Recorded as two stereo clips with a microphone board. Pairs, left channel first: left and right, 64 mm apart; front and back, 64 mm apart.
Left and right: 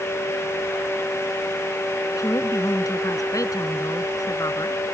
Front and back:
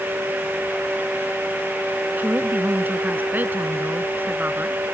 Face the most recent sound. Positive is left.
turn(degrees=120)